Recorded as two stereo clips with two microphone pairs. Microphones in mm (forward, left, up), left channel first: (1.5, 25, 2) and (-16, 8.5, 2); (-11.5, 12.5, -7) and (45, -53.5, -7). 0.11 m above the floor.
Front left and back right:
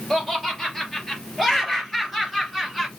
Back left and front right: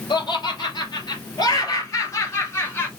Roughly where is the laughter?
Behind left.